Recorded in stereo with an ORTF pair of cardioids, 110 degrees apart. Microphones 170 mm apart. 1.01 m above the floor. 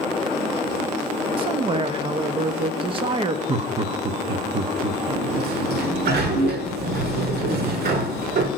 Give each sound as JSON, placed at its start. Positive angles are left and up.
{"t": 1.4, "sound": "a man speaking", "azimuth_deg": -35, "distance_m": 1.3}
{"t": 3.5, "sound": "laughter", "azimuth_deg": -35, "distance_m": 1.3}
{"t": 5.1, "sound": "a sliding door", "azimuth_deg": -70, "distance_m": 1.6}